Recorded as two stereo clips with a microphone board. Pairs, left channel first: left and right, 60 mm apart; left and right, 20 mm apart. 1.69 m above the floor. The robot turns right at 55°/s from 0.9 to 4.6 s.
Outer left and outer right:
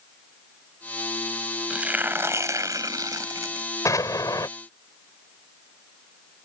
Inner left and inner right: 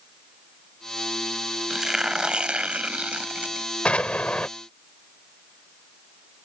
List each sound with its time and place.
1.7 s tearing paper: 165° right; by 3.7 s 55° right
3.9 s an explosion: 65° left; by 4.5 s 100° left